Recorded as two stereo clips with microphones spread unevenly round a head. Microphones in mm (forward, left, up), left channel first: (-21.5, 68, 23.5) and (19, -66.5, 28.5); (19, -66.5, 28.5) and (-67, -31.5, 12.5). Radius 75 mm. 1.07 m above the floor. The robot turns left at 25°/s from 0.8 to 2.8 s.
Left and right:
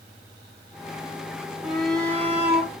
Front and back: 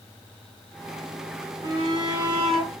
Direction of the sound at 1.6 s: 160° right.